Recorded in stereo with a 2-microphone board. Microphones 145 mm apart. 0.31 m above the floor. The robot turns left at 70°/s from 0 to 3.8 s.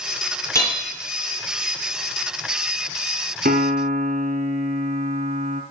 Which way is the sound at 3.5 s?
90° right.